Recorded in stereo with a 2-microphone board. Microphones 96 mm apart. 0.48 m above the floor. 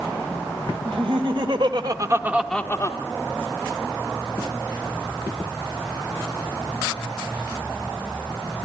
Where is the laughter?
65° right (ahead or behind), 2.5 m; by 3.0 s 40° left (ahead or behind), 1.1 m.